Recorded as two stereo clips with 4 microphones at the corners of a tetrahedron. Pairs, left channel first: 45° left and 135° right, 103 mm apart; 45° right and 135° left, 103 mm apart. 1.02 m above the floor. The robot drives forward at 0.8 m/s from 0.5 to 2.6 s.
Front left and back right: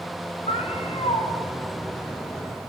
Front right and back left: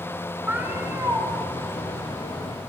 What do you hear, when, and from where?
0.5 s a cat meowing: 60° left, 3 m; by 1.3 s 70° left, 2.5 m